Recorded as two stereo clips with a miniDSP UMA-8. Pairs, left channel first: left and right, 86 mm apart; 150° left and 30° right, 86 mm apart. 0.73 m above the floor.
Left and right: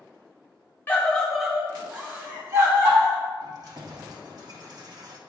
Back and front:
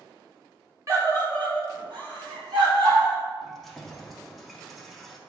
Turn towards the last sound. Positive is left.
turn(degrees=-120)